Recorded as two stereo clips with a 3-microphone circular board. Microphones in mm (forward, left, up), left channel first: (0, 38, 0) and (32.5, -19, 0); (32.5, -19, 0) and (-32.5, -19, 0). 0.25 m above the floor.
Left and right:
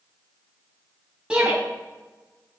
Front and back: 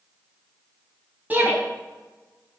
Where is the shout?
125° right, 1.6 m.